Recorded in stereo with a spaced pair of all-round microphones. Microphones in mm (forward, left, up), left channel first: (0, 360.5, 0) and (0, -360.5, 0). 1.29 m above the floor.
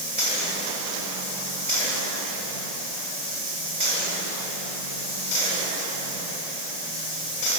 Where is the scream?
No scream in this recording.